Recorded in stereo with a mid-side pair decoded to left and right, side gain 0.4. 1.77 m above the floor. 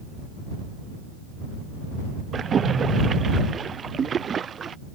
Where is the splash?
50° right.